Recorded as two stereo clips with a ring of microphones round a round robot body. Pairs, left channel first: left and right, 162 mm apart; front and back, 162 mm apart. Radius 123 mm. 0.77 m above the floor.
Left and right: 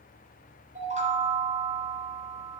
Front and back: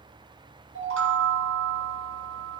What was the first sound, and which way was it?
A chime, 155° right.